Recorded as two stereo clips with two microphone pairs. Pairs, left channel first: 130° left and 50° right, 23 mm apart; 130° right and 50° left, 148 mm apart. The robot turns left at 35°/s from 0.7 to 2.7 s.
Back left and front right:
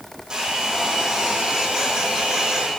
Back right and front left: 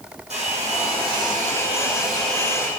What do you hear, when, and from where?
0.3 s a hair dryer: 10° left, 5.5 m; by 2.7 s 60° right, 5.5 m